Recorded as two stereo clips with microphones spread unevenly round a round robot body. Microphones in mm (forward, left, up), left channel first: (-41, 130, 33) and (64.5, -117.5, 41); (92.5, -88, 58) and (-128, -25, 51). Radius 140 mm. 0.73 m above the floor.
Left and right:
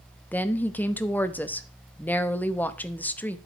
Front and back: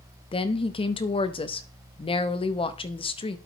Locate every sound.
0.3 s a woman speaking: 35° left, 0.7 m